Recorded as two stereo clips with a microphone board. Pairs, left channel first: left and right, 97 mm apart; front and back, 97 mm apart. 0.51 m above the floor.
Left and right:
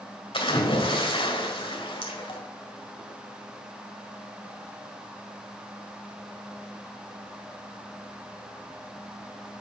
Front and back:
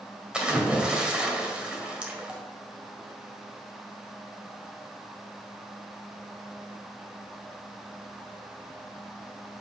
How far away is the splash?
About 1.7 m.